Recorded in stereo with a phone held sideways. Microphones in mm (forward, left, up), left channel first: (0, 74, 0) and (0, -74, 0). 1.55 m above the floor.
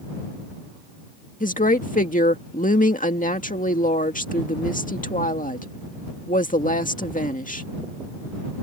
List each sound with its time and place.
1.4 s a woman speaking: 65° left (ahead or behind)